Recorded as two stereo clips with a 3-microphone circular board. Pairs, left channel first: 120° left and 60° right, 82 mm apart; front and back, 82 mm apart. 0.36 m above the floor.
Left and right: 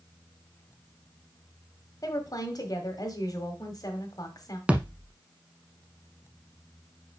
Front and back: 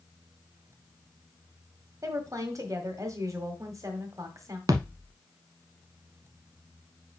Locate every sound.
2.0 s a woman speaking: 140° left, 1.6 m
4.7 s a thud: 135° right, 0.8 m